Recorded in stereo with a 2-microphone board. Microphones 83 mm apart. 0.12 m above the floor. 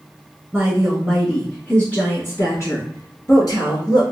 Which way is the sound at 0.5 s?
10° right (ahead or behind).